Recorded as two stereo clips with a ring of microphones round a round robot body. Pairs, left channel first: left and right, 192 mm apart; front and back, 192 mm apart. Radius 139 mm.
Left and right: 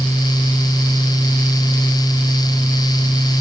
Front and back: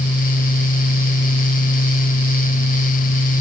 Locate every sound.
Only background noise.